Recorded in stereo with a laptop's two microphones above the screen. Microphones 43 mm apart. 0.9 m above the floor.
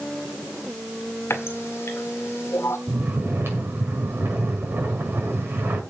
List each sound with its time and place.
1.3 s a running tap: 90° left, 1.9 m
2.9 s snoring: 65° right (ahead or behind), 6 m